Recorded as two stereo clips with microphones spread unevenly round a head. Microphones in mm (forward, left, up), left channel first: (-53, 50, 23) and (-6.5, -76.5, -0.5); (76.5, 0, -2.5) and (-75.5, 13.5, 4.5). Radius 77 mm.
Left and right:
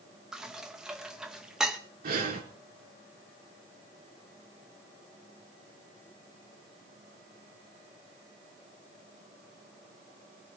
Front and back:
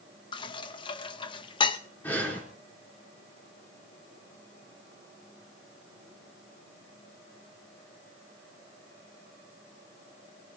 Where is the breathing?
85° right, 3.5 m.